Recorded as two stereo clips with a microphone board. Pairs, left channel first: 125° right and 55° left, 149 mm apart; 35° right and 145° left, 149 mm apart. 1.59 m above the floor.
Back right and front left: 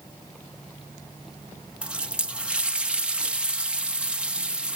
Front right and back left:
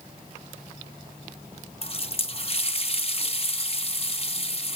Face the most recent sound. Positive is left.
turn(degrees=-25)